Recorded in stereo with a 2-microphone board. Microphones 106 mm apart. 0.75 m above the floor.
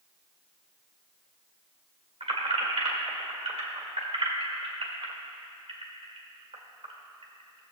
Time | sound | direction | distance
2.2 | keys jangling | 70° right (ahead or behind) | 1.7 m